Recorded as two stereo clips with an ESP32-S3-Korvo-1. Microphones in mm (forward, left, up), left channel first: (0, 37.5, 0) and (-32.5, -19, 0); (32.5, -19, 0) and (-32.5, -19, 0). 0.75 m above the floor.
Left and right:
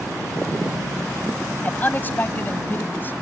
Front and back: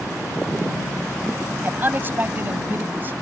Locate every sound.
1.6 s a man speaking: 125° left; by 3.1 s 120° left